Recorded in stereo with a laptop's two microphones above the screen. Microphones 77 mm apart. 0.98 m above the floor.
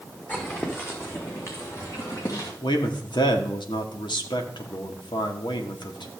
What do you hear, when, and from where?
0.3 s footsteps: 20° left (ahead or behind), 3 m; by 2.5 s 50° left (ahead or behind), 3.5 m
2.6 s a man speaking: 80° left, 1.9 m